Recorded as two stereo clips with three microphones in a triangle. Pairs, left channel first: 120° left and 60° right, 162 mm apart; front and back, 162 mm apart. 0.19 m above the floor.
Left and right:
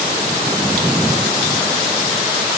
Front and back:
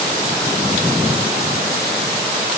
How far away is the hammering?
No hammering in this recording.